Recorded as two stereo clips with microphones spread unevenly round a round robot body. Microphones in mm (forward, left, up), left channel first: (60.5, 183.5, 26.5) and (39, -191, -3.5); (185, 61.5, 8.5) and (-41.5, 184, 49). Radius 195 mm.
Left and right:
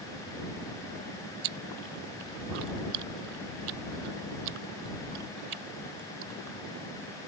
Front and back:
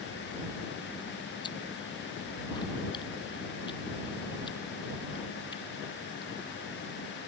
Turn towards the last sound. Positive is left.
turn(degrees=-110)